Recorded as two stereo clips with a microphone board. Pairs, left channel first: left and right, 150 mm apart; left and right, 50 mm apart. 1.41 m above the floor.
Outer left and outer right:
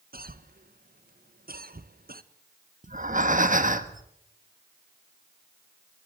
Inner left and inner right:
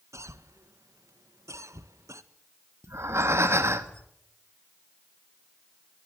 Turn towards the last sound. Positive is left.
turn(degrees=-60)  # may be behind; listen again after turning